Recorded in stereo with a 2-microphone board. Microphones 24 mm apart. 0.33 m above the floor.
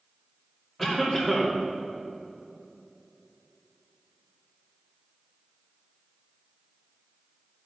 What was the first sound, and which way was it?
A cough, 10° left (ahead or behind).